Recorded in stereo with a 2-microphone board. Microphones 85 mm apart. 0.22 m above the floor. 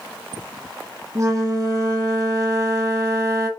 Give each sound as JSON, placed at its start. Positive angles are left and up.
{"t": 1.1, "sound": "a flute", "side_deg": -40, "distance_m": 1.1}